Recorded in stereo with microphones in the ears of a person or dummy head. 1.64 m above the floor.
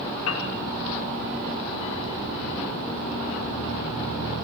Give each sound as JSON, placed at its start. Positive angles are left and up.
{"t": 0.3, "sound": "a piano", "side_deg": 80, "distance_m": 4.5}